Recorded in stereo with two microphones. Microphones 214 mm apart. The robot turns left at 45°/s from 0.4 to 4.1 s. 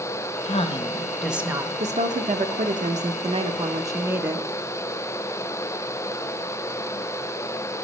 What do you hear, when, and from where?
0.5 s a woman speaking: 35° left, 0.7 m; by 1.7 s 20° right, 0.7 m
1.8 s a woman speaking: 60° right, 0.6 m; by 4.5 s 165° right, 0.6 m